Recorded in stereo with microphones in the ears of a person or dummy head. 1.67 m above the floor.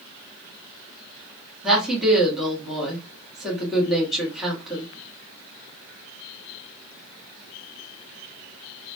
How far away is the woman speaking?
About 1.3 m.